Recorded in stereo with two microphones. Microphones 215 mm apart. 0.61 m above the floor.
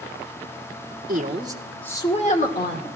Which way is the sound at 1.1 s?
40° right (ahead or behind).